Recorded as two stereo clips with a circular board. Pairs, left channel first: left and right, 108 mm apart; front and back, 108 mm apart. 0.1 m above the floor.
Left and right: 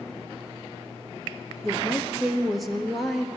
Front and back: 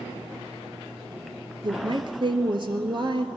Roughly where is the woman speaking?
Behind.